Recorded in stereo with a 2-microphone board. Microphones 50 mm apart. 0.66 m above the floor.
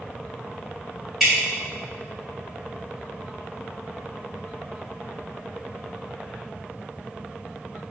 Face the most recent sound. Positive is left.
turn(degrees=0)  # may be behind; listen again after turning